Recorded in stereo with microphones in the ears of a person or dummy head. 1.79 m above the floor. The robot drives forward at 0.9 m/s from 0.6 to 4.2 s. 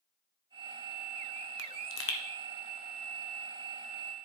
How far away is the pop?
About 0.8 m.